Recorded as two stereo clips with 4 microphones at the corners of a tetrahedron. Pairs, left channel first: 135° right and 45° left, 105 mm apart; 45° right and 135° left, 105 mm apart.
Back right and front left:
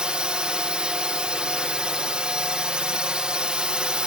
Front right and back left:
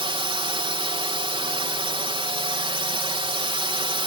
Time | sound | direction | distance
0.0 | a drone | 125° left | ?